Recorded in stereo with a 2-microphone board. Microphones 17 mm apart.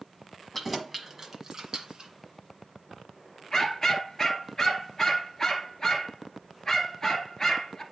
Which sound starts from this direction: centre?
Keys jangling, at 0.5 s.